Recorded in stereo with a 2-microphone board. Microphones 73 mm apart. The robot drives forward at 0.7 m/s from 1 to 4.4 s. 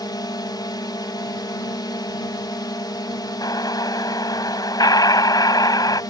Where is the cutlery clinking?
No cutlery clinking in this recording.